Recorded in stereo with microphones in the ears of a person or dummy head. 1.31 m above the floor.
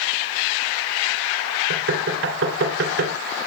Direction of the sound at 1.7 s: 80° right.